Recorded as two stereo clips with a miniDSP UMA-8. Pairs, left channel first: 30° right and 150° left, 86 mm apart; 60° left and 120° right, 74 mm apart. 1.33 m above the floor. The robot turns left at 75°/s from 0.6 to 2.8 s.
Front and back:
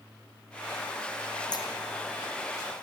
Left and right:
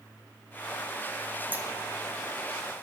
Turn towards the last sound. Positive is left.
turn(degrees=-155)